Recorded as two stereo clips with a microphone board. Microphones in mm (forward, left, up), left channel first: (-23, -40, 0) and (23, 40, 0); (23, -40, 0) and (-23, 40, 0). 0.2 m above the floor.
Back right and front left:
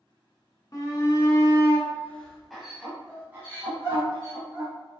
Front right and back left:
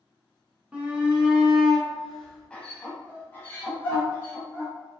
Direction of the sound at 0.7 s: 165° right.